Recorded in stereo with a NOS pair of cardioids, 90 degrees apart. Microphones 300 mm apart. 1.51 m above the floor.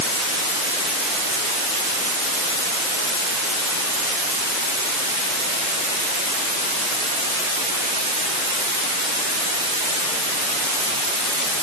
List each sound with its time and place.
Only background noise.